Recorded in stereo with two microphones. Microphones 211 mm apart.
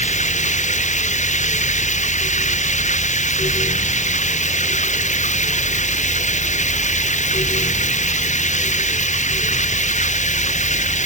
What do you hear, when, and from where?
0.0 s running water: 35° left (ahead or behind)